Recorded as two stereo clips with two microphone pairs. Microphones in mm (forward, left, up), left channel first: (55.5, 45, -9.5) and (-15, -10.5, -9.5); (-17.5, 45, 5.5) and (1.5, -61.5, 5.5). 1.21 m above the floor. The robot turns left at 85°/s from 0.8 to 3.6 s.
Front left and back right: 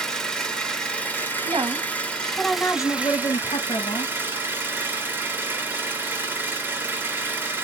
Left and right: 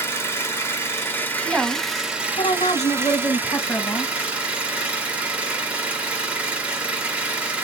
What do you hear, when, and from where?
0.0 s an engine running: 100° left, 0.9 m; by 7.6 s 135° right, 0.9 m
1.4 s a woman speaking: 150° right, 0.8 m; by 4.1 s 30° left, 0.8 m